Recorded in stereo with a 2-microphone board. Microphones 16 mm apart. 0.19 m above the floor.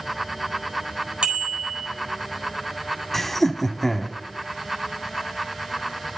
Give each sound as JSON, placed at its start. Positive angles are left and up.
{"t": 1.2, "sound": "a bicycle bell", "side_deg": -60, "distance_m": 4.0}
{"t": 3.1, "sound": "laughter", "side_deg": 15, "distance_m": 1.2}